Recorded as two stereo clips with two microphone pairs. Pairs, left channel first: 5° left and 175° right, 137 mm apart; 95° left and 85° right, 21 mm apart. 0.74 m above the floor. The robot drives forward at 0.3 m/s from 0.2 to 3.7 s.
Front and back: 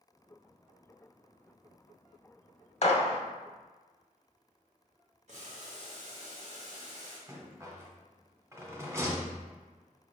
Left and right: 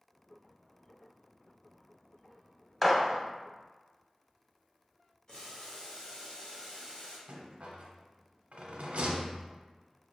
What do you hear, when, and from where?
2.8 s a gunshot: 15° left, 0.8 m; by 3.2 s 20° left, 0.7 m
5.3 s boiling: 155° left, 1.5 m
7.3 s a rattle: 105° right, 0.9 m